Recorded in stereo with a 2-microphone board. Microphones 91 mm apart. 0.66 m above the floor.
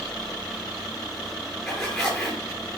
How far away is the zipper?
About 6.5 m.